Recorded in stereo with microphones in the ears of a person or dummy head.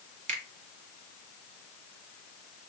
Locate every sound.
0.3 s a finger snap: 40° right (ahead or behind), 1.4 m